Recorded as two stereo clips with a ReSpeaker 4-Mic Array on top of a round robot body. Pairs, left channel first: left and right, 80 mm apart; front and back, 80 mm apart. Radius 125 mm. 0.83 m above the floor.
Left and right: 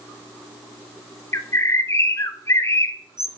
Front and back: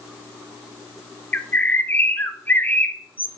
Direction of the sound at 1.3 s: 55° left.